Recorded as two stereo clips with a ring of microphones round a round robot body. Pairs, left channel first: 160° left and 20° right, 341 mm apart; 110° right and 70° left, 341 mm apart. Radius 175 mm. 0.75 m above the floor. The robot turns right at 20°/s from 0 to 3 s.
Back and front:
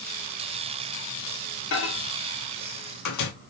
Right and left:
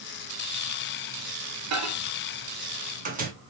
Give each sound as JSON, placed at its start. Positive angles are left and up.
{"t": 1.7, "sound": "a microwave", "azimuth_deg": 105, "distance_m": 1.1}